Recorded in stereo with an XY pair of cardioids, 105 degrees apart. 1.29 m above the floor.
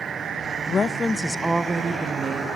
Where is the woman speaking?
45° left, 1.2 m; by 2.5 s 50° right, 2.0 m.